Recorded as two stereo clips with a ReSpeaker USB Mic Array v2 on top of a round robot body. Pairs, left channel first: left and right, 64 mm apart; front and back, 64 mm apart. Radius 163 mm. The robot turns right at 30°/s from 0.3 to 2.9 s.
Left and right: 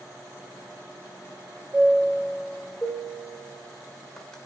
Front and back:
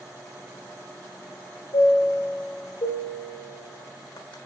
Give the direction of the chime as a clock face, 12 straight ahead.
1 o'clock.